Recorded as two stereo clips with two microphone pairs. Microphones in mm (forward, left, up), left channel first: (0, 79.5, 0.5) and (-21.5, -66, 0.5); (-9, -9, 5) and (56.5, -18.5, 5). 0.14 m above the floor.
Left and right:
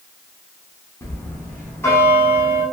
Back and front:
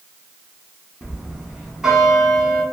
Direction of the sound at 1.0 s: 55° left.